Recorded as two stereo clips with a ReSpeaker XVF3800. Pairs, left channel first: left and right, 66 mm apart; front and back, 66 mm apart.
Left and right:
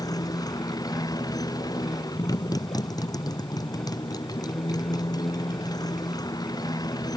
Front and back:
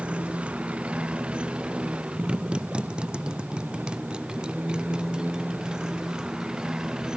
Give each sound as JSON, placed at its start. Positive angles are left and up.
{"t": 0.0, "sound": "a motorcycle", "azimuth_deg": 105}